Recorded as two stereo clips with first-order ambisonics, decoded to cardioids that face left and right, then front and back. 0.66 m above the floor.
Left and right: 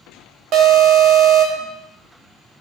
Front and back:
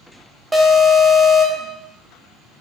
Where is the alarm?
105° right, 1.0 m.